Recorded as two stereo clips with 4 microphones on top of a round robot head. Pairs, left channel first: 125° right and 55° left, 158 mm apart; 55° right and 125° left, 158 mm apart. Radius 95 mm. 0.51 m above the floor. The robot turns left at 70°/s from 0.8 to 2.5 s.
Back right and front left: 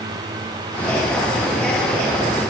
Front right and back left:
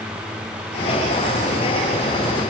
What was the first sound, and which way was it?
Only background noise.